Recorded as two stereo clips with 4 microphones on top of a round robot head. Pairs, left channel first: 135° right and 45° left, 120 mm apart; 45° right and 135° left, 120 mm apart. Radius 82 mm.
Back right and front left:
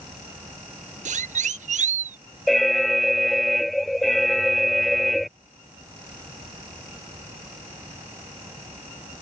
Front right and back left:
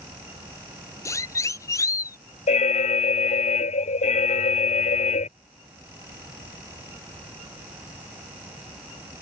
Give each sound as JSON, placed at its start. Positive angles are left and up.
{"t": 1.1, "sound": "a siren", "azimuth_deg": 20}
{"t": 2.5, "sound": "an alarm", "azimuth_deg": -45}